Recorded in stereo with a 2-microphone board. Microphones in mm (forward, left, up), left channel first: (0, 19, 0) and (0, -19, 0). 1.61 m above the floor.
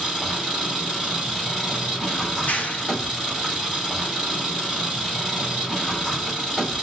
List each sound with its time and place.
0.0 s an engine running: 15° left (ahead or behind), 1.6 m
2.3 s a clap: 45° left (ahead or behind), 0.5 m